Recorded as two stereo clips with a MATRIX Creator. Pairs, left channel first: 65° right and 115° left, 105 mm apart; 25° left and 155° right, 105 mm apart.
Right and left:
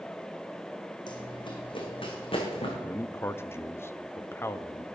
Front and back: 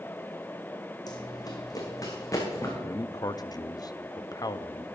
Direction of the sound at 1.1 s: 25° right.